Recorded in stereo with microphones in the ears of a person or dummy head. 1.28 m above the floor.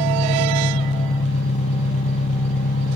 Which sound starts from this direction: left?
An engine running, at 0.0 s.